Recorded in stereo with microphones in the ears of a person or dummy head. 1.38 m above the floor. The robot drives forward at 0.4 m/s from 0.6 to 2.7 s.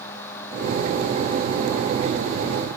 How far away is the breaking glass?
I don't hear breaking glass.